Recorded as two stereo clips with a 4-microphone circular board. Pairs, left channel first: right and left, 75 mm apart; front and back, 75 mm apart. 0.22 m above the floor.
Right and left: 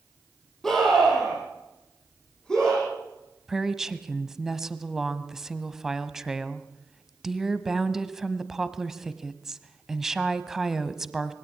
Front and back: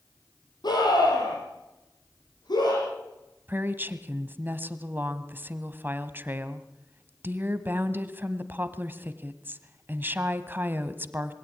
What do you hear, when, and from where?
0.6 s a scream: 5° right, 8 m; by 2.8 s 10° right, 10.5 m
3.5 s a woman speaking: 165° left, 1.1 m